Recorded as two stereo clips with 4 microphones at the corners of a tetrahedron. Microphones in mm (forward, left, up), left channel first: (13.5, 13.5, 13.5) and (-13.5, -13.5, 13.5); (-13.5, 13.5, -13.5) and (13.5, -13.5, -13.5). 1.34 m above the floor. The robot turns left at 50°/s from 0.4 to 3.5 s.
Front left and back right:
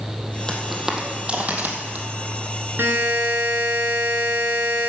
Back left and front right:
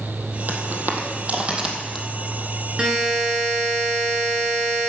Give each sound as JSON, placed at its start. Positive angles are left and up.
{"t": 0.5, "sound": "footsteps", "azimuth_deg": -25, "distance_m": 2.0}
{"t": 2.8, "sound": "a buzzer", "azimuth_deg": -110, "distance_m": 3.5}